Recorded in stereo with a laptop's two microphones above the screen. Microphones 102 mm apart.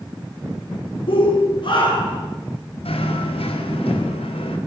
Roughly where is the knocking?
Left.